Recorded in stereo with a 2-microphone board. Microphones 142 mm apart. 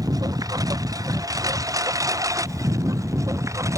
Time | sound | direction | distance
0.0 | a lawn mower | 25° right (ahead or behind) | ?